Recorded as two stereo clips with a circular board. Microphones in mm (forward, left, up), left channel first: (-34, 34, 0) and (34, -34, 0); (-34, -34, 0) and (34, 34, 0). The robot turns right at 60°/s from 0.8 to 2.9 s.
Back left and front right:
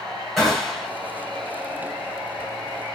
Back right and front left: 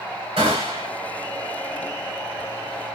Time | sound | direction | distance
0.4 | a gunshot | 50° left | 3.5 m